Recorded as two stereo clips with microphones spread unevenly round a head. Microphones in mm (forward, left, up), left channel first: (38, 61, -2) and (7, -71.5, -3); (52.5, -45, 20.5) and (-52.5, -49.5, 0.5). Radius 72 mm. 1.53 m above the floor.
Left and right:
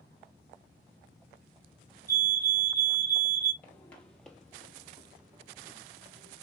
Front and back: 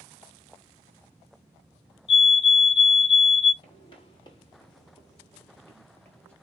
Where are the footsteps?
Straight ahead, 2.5 m; by 6.3 s 50° right, 1.9 m.